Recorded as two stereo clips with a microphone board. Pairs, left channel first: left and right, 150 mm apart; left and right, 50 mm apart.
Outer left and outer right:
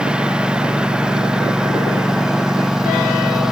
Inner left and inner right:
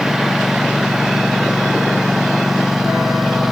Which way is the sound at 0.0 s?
5° right (ahead or behind).